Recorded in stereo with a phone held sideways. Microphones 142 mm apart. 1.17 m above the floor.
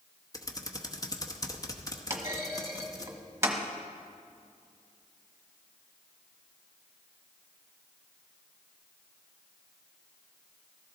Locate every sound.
0.3 s typing on a keyboard: 25° left (ahead or behind), 0.9 m
2.1 s a clunk: 20° right (ahead or behind), 1.3 m